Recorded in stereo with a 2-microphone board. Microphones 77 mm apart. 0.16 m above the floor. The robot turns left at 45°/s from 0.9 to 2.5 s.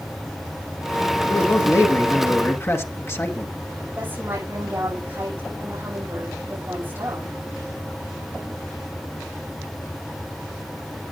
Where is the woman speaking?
25° right (ahead or behind), 7.5 m.